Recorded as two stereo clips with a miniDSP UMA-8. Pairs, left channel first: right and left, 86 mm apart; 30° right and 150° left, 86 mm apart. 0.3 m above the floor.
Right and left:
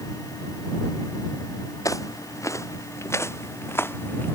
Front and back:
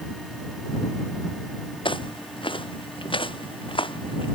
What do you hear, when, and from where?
1.9 s footsteps: 40° right; by 4.4 s 25° right